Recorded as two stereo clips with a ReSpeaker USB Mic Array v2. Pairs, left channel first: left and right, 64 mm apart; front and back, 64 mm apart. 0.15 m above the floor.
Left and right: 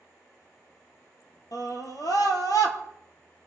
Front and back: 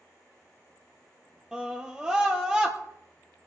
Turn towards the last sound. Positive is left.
turn(degrees=100)